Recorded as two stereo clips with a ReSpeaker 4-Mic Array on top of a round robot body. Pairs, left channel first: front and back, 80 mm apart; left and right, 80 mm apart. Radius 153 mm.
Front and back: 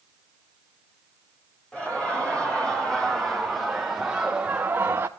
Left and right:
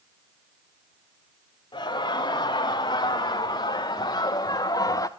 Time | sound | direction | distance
1.7 | laughter | 75° left | 2.5 m